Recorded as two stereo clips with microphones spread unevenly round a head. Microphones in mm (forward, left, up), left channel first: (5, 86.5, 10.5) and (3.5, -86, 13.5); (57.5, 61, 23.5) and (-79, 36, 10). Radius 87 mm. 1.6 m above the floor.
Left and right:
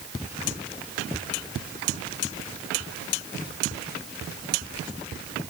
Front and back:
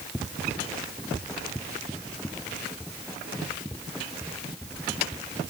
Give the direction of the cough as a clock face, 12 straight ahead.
No cough in this recording.